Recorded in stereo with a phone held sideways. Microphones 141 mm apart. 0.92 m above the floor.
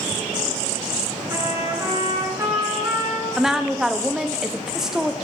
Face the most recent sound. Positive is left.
turn(degrees=-5)  # may be behind; listen again after turning